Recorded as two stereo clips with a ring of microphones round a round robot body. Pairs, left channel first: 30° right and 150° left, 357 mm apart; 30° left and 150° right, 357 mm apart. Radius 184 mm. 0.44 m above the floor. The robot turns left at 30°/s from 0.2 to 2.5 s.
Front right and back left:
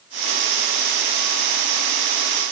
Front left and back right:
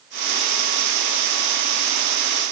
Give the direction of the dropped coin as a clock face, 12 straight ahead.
I don't hear a dropped coin.